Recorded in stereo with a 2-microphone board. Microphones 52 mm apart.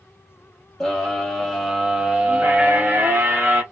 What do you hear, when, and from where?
0.8 s a scream: 10° left (ahead or behind), 1.4 m; by 3.6 s 45° right (ahead or behind), 1.1 m